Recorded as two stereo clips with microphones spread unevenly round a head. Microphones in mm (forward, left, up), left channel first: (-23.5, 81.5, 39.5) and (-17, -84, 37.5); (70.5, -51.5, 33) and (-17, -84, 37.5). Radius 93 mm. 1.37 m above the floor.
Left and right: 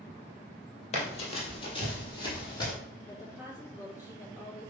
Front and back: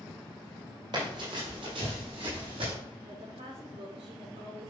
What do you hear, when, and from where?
0.9 s running footsteps: 140° left, 2.5 m; by 2.7 s 160° left, 3.5 m
3.1 s a woman speaking: 165° left, 5 m